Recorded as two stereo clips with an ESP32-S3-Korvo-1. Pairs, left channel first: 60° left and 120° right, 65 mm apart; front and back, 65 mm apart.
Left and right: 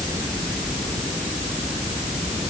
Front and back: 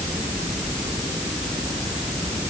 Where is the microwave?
No microwave in this recording.